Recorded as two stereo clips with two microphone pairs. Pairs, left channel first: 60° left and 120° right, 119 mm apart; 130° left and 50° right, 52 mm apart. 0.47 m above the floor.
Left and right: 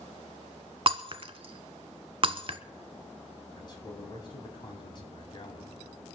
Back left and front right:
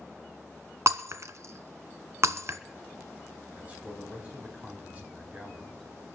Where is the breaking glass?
80° right, 0.8 m.